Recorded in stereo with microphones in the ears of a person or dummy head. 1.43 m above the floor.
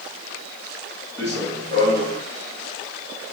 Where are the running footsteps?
15° left (ahead or behind), 4.5 m; by 2.2 s 30° left (ahead or behind), 3.5 m.